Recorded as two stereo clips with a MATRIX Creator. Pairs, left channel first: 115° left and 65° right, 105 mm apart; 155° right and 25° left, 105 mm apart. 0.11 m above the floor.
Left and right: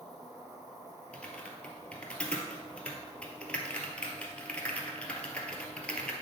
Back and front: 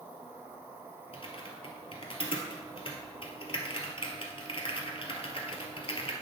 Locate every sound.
0.0 s an insect: 45° right, 2.5 m
1.1 s typing on a keyboard: 170° right, 1.2 m